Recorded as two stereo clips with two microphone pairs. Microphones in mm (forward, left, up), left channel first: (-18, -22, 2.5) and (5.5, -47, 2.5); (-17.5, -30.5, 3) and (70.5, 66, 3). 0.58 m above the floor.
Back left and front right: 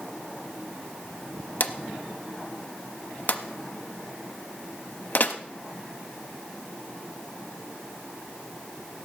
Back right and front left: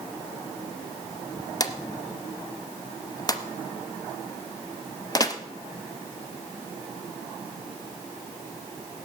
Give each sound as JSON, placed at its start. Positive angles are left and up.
{"t": 1.6, "sound": "a drawer", "azimuth_deg": 165, "distance_m": 0.8}